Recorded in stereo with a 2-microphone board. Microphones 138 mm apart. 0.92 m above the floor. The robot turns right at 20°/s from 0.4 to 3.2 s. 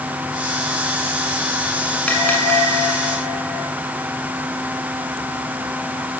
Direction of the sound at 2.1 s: 10° left (ahead or behind).